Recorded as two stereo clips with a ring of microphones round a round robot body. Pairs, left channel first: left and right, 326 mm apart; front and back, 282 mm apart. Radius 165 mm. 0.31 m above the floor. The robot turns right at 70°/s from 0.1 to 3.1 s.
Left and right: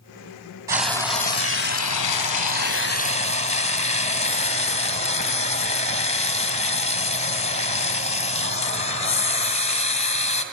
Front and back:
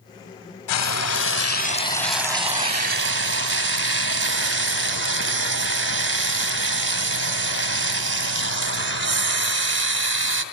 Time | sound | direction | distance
0.7 | frying | 10° right | 2.5 m